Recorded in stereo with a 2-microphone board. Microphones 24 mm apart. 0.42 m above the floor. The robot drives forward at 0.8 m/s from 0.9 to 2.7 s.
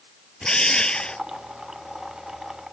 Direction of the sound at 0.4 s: 40° left (ahead or behind).